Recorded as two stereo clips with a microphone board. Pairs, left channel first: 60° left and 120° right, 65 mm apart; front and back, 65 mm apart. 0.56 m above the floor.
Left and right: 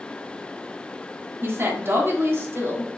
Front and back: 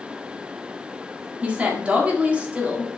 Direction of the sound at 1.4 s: 125° right.